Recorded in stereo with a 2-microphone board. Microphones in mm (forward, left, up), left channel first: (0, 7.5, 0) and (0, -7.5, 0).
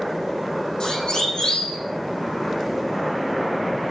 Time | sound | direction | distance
0.8 | a siren | 60° left (ahead or behind) | 10 m